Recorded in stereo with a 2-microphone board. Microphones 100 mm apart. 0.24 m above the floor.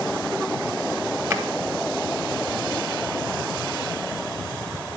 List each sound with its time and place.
1.3 s a drawer: 30° right (ahead or behind), 1.2 m